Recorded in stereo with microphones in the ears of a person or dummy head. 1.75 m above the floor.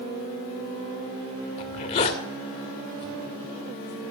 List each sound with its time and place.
1.6 s a zipper: 40° left (ahead or behind), 2 m